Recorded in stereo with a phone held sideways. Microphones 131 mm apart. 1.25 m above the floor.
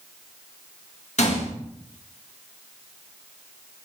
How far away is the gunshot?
About 1.8 m.